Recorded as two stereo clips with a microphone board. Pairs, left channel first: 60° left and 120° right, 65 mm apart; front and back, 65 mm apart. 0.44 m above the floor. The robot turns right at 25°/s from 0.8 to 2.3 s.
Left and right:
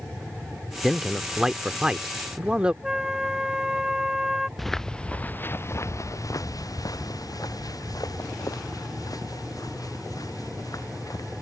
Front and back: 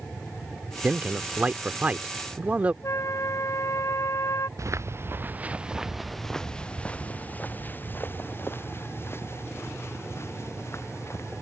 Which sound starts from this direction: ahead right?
A flute, at 2.8 s.